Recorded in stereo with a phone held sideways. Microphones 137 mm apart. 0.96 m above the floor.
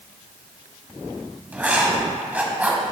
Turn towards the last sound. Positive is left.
turn(degrees=-10)  # may be behind; listen again after turning